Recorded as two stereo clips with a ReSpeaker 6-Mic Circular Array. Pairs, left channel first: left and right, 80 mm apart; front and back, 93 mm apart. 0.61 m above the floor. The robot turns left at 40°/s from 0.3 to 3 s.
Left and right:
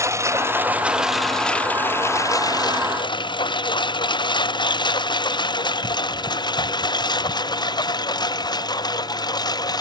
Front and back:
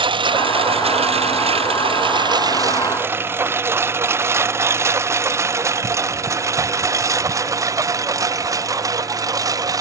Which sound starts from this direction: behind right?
A lawn mower, at 0.0 s.